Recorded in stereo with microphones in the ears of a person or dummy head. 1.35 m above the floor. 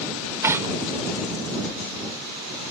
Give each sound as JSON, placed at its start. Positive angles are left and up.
{"t": 0.4, "sound": "tearing paper", "side_deg": -15}